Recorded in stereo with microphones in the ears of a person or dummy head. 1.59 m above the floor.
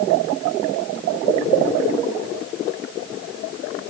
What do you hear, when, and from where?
Only background noise.